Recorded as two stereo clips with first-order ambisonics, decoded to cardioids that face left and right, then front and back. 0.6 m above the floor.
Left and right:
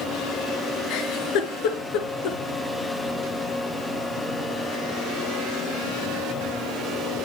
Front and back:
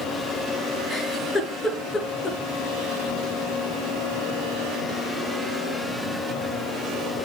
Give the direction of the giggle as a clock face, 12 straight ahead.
9 o'clock.